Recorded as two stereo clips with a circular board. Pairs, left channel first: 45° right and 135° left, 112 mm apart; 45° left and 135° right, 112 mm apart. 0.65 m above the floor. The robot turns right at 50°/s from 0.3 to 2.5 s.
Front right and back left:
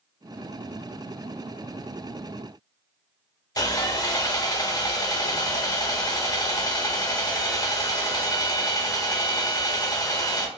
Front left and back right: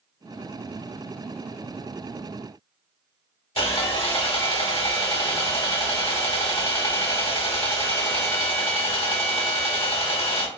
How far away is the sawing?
About 0.7 m.